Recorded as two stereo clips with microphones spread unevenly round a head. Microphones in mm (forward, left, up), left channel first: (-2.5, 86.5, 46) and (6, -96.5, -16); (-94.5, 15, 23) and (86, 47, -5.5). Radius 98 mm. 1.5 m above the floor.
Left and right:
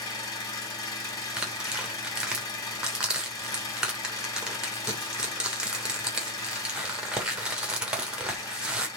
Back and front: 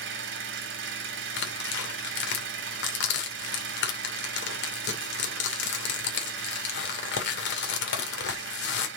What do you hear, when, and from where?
0.0 s an engine running: 30° left, 2 m
1.4 s tearing paper: straight behind, 2.5 m